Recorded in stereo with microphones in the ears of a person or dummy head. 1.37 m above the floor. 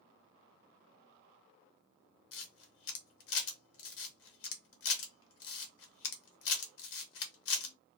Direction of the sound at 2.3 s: 70° left (ahead or behind).